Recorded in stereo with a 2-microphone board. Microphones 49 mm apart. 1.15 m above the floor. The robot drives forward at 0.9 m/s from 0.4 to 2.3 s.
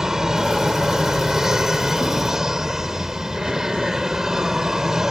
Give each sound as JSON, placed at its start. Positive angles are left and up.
{"t": 0.0, "sound": "an aircraft", "side_deg": -10}